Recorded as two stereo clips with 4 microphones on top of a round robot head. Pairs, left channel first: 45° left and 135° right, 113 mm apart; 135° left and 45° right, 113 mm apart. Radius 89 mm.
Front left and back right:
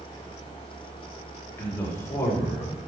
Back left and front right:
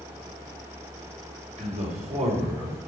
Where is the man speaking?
25° right, 3.5 m; by 2.8 s 15° right, 4 m.